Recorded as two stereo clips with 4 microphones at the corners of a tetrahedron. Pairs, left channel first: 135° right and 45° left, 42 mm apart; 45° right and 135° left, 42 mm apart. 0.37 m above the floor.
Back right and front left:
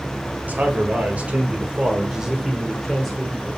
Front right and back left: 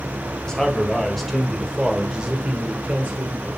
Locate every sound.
0.5 s a man speaking: 25° left, 2.0 m; by 3.5 s 155° left, 1.7 m